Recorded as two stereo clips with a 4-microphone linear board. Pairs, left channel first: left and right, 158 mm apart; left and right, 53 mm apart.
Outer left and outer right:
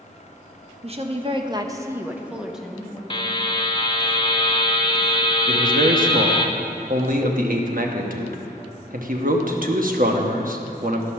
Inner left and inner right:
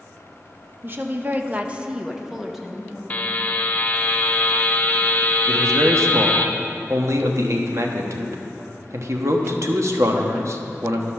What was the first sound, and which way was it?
A woman speaking, 40° right (ahead or behind).